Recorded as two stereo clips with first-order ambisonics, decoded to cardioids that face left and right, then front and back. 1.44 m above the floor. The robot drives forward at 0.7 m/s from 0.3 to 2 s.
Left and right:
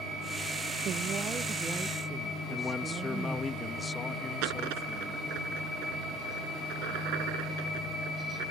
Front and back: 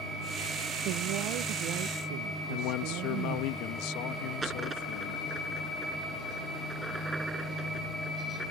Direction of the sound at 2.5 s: 15° left.